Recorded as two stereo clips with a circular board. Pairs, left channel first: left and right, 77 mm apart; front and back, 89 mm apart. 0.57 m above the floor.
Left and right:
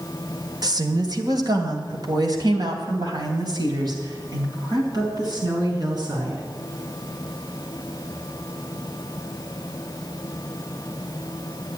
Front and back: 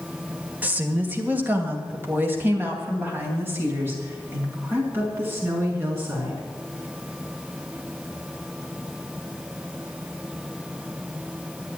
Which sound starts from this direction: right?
A woman speaking, at 0.6 s.